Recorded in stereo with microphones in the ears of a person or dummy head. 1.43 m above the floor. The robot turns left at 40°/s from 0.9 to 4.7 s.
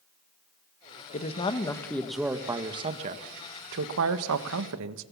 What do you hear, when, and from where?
1.1 s a man speaking: 40° left, 1.4 m; by 5.0 s 105° right, 1.4 m